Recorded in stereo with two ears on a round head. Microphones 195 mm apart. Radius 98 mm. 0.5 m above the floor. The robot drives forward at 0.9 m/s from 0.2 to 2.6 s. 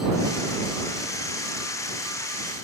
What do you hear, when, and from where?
Only background noise.